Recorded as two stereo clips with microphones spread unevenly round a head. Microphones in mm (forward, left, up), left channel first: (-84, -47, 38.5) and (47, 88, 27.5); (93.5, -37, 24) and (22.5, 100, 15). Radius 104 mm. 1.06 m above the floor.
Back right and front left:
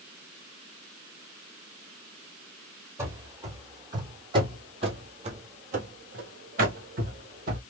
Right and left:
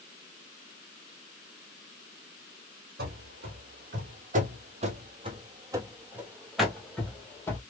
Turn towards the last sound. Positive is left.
turn(degrees=0)